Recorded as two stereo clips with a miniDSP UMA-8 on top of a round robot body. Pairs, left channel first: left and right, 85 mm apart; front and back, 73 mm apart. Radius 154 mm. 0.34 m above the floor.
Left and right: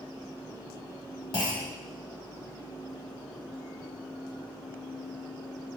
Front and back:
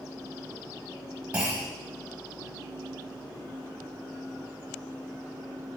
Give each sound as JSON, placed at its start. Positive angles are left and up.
{"t": 1.3, "sound": "a clunk", "azimuth_deg": 110, "distance_m": 1.4}